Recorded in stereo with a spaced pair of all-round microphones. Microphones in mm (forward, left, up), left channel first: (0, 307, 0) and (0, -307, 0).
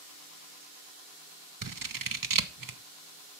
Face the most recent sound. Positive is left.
turn(degrees=-35)  # may be behind; listen again after turning